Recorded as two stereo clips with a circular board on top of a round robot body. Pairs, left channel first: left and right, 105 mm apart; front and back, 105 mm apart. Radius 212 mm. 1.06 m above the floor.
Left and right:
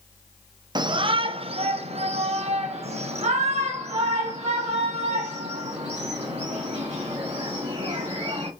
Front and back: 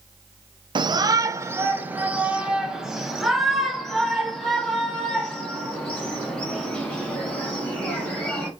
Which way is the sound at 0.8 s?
140° right.